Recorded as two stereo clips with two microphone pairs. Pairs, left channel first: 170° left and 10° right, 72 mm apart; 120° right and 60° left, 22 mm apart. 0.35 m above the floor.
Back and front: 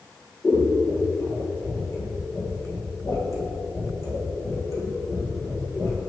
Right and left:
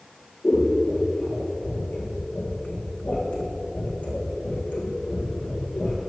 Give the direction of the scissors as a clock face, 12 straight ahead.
5 o'clock.